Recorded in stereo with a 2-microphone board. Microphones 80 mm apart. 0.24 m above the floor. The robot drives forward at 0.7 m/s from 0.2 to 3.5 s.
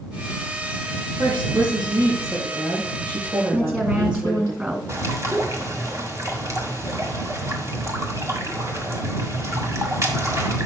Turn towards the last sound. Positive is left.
turn(degrees=-40)  # may be behind; listen again after turning